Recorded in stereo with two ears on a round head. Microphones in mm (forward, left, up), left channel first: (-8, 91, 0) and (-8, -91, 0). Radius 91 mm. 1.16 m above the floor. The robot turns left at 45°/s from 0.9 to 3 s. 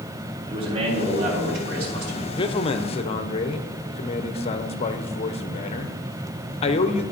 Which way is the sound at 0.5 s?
30° right.